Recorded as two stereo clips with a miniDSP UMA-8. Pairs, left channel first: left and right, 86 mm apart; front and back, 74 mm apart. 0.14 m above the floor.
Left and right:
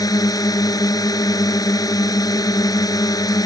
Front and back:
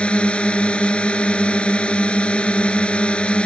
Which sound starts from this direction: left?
A drone, at 0.0 s.